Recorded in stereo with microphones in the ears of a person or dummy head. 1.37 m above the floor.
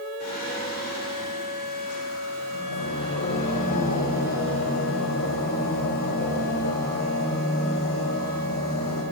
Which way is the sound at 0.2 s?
50° left (ahead or behind).